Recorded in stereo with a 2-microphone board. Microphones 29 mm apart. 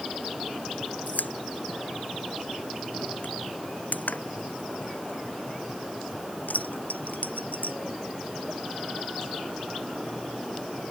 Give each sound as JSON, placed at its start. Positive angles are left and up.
{"t": 1.1, "sound": "a pop", "side_deg": 80}